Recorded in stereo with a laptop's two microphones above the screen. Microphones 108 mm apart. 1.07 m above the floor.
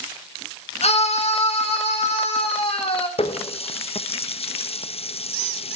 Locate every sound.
0.8 s a scream: 65° left (ahead or behind), 1.2 m; by 3.1 s 55° left (ahead or behind), 4 m
3.2 s a running tap: 60° left (ahead or behind), 0.6 m